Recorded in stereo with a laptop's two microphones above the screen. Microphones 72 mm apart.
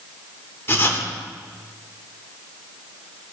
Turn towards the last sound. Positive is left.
turn(degrees=35)  # may be behind; listen again after turning